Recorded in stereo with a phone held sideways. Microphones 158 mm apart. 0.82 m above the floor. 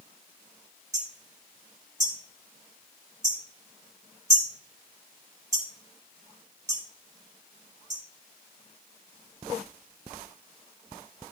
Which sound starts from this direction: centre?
Hammering, at 0.9 s.